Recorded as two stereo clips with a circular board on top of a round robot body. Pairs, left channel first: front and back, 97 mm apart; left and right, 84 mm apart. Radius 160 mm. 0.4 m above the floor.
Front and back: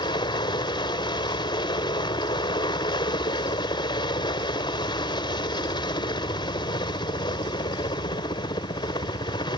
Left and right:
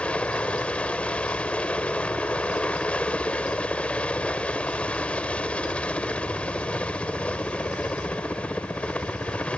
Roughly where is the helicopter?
Ahead.